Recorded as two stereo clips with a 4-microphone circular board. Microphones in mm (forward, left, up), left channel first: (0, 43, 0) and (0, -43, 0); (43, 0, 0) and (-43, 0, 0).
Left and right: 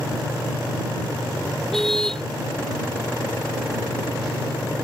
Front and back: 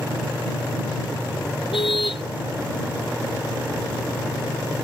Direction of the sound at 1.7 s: 5° left.